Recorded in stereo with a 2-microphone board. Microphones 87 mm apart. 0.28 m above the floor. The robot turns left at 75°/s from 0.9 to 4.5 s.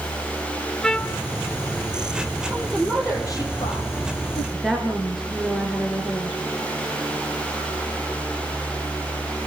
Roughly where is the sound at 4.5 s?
Centre.